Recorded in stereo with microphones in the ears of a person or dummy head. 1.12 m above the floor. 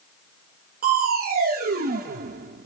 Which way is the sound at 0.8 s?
45° right (ahead or behind).